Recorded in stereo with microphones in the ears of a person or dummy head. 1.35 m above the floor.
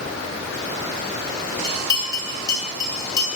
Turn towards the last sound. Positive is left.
turn(degrees=20)  # may be behind; listen again after turning